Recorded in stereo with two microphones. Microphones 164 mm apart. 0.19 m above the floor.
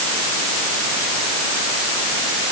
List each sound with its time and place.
Only background noise.